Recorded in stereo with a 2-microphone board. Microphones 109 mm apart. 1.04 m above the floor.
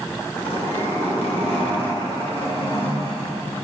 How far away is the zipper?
About 4.5 m.